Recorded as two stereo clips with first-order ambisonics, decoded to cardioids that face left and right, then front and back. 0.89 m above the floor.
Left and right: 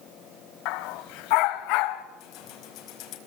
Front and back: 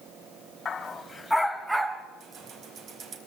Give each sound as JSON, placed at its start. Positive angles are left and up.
{"t": 0.7, "sound": "a dog barking", "azimuth_deg": 70, "distance_m": 1.8}
{"t": 2.2, "sound": "keys jangling", "azimuth_deg": 125, "distance_m": 4.5}